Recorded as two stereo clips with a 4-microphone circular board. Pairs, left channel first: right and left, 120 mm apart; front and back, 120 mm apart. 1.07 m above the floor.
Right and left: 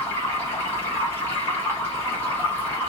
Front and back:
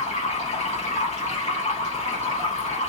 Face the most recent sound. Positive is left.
turn(degrees=-20)